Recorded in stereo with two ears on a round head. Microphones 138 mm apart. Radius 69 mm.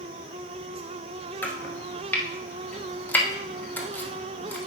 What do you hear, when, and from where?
1.4 s chopping: 10° left (ahead or behind), 1.0 m